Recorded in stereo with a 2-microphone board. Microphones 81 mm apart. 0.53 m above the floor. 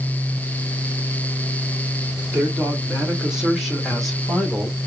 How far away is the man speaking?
About 2.5 m.